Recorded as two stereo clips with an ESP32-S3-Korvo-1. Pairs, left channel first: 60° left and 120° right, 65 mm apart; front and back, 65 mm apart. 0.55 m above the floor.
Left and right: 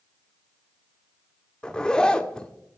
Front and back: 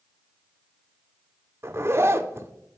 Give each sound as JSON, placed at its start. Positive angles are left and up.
{"t": 1.6, "sound": "a zipper", "azimuth_deg": 140, "distance_m": 0.6}